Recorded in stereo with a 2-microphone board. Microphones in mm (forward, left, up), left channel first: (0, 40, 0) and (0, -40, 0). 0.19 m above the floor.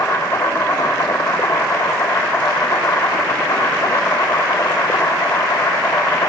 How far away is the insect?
About 8.5 m.